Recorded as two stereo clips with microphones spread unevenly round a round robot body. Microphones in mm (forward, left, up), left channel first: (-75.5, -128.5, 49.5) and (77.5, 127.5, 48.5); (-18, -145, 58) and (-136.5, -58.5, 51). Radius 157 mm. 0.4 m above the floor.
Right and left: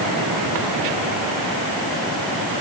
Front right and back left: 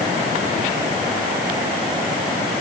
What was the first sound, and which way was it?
Only background noise.